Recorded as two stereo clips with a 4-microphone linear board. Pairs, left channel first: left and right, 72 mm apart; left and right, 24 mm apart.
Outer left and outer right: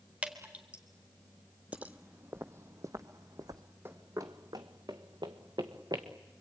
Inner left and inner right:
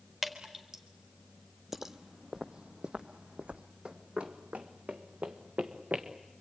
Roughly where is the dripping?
Centre.